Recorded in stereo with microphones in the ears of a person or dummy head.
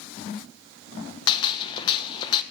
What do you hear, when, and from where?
1.3 s a gunshot: 30° left (ahead or behind), 1.0 m